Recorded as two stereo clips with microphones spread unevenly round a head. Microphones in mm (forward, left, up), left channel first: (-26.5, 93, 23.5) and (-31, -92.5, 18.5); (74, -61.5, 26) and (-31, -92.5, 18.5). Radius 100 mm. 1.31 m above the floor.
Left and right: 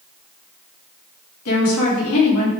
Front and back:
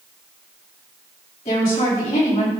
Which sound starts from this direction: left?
A woman speaking, at 1.4 s.